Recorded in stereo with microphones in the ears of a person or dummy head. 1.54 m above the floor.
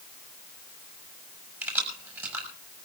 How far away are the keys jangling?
About 5.5 m.